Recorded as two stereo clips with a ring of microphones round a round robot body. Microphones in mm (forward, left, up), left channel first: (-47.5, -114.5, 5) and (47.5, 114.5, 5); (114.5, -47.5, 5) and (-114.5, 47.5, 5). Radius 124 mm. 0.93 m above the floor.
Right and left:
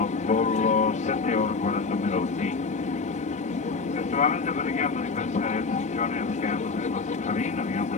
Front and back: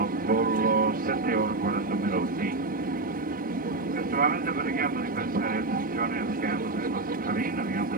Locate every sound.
0.0 s an aircraft: 165° right